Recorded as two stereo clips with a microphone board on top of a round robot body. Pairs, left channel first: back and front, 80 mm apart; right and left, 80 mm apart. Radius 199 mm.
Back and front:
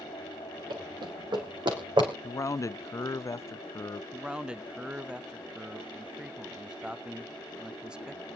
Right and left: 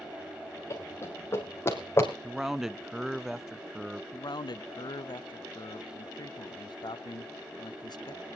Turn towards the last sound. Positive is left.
turn(degrees=-80)